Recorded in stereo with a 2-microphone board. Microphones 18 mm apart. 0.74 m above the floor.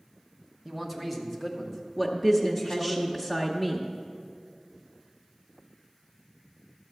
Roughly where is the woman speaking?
Centre.